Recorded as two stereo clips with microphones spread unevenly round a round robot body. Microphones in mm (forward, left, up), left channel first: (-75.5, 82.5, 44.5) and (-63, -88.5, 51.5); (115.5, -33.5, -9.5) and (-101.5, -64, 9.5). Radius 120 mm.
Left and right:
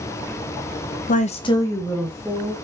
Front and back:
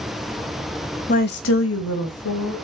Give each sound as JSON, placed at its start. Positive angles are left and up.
{"t": 1.1, "sound": "a woman speaking", "azimuth_deg": 60, "distance_m": 0.8}